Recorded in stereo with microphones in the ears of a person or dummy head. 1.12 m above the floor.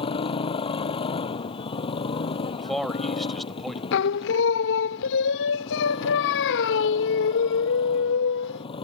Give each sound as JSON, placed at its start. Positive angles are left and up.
{"t": 0.0, "sound": "a motorcycle", "side_deg": 30}
{"t": 2.6, "sound": "a man speaking", "side_deg": 0}
{"t": 3.9, "sound": "singing", "side_deg": 60}